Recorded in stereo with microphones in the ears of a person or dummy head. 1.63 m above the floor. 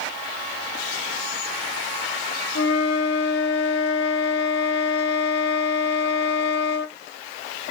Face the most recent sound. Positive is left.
turn(degrees=60)  # may be behind; listen again after turning